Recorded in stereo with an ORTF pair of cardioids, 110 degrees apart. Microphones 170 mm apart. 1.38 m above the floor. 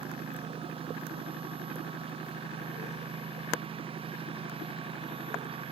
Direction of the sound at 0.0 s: 30° right.